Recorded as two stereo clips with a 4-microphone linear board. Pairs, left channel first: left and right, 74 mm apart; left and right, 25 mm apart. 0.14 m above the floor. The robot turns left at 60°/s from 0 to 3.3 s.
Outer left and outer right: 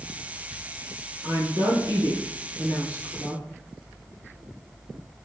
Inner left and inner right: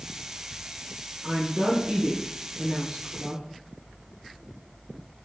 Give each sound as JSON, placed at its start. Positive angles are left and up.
{"t": 1.2, "sound": "a woman speaking", "azimuth_deg": -55, "distance_m": 2.0}